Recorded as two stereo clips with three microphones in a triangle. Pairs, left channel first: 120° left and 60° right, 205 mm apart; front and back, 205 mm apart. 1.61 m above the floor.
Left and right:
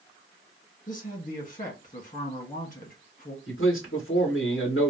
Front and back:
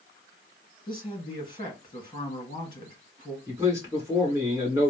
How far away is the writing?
No writing in this recording.